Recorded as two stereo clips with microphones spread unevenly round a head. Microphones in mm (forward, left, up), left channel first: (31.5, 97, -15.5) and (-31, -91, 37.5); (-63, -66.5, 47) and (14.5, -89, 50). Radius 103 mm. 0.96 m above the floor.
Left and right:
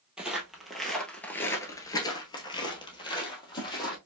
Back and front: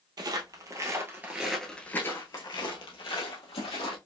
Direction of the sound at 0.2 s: 35° right.